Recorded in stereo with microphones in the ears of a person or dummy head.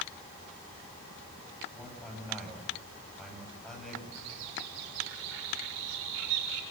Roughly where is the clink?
I don't hear a clink.